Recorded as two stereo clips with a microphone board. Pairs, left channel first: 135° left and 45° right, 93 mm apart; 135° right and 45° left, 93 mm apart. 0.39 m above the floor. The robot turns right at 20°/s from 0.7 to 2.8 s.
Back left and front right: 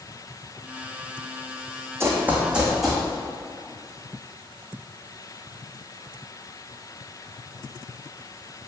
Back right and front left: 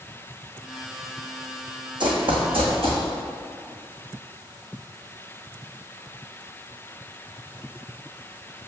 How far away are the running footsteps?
About 1.2 m.